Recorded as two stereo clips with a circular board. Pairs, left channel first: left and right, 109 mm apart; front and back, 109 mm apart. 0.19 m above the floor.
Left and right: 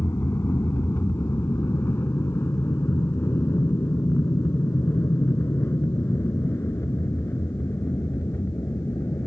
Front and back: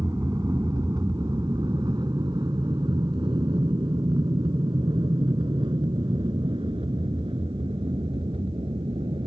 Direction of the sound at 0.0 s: 145° left.